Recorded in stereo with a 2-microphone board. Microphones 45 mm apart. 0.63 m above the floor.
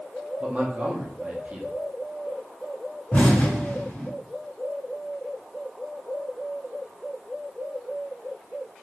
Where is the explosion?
50° left (ahead or behind), 1.7 m.